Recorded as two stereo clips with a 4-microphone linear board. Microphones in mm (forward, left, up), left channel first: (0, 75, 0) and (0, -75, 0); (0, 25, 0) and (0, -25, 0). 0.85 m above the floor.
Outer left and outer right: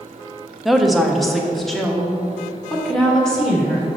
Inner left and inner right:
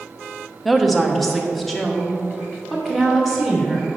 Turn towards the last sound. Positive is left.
turn(degrees=5)  # may be behind; listen again after turning